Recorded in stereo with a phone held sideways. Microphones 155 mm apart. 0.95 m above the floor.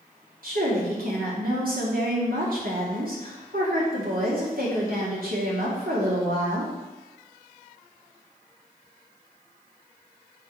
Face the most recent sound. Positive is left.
turn(degrees=-70)  # may be behind; listen again after turning